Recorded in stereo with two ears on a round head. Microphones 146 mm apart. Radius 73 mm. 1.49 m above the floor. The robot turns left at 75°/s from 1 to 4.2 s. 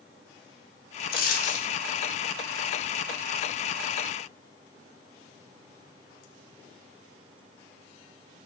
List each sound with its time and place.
1.1 s a dropped coin: 80° left, 1.7 m; by 1.7 s 35° left, 1.7 m